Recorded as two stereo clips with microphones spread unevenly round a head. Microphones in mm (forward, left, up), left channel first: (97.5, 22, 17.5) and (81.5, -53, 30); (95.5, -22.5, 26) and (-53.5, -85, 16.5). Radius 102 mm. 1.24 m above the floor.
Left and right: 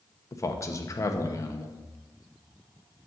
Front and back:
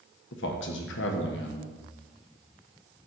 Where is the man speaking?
25° left, 1.1 m.